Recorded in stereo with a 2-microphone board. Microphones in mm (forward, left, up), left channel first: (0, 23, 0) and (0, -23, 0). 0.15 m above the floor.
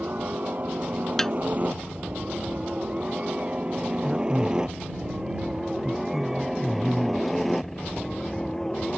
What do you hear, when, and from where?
0.0 s a helicopter: 40° right (ahead or behind); by 9.0 s 10° left (ahead or behind)
1.2 s a snare drum: 10° left (ahead or behind)
4.0 s a man speaking: centre (ahead or behind)